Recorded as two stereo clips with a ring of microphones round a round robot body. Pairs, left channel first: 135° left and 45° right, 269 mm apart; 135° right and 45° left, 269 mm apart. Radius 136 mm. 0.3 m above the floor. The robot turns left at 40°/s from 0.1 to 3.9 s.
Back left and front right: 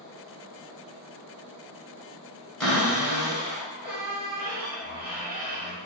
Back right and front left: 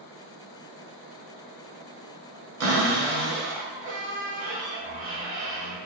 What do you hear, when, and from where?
2.6 s a cupboard door: 50° left, 1.3 m; by 5.8 s 5° right, 1.3 m